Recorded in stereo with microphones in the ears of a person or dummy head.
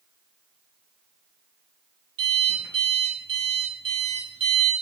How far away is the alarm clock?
About 6.5 m.